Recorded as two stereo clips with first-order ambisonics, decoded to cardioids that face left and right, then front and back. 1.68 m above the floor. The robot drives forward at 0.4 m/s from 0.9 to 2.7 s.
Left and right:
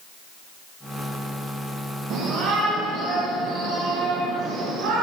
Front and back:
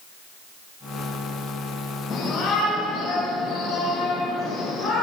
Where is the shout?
70° right, 2.5 m; by 5.0 s 75° right, 2.5 m.